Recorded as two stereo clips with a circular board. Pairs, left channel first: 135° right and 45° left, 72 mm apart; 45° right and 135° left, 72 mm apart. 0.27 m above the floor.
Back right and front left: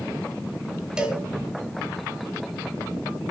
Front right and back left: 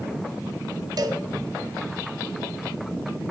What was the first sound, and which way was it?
A cowbell, 125° left.